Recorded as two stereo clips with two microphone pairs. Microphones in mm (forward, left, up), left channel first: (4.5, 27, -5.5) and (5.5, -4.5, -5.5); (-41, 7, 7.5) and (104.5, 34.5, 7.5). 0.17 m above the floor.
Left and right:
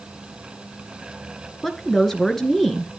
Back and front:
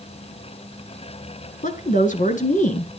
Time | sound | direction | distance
1.6 | a woman speaking | 175° left | 2 m